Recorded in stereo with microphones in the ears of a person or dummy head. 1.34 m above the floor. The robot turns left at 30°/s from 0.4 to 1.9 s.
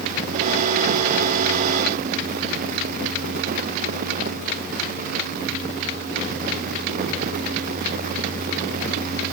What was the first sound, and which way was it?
Only background noise.